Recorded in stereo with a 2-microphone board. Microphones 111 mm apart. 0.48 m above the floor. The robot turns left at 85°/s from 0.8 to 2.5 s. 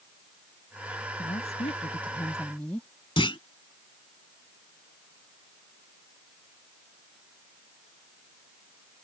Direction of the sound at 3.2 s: 50° left (ahead or behind).